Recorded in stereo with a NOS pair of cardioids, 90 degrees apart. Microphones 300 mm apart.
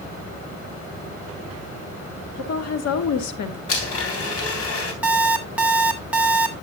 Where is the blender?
50° left, 3.5 m.